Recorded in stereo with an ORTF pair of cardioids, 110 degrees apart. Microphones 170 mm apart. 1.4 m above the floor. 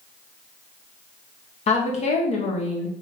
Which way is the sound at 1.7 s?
40° left.